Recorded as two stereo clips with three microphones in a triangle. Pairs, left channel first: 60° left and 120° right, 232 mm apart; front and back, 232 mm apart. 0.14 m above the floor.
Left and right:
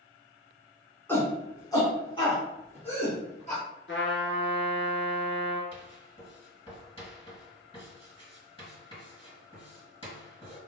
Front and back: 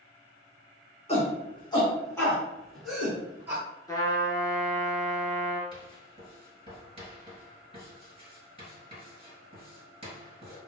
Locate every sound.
1.1 s a shout: 10° right, 1.4 m; by 3.6 s 105° left, 1.7 m
3.9 s a trumpet: 75° left, 0.8 m
5.7 s writing: 120° left, 2.0 m